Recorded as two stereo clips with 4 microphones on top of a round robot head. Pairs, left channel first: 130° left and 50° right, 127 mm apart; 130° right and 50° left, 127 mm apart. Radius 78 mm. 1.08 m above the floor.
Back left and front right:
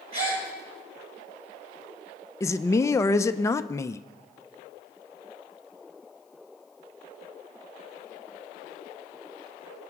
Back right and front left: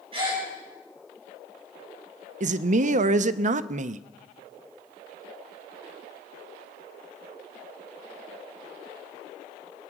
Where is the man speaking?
65° left, 0.6 m.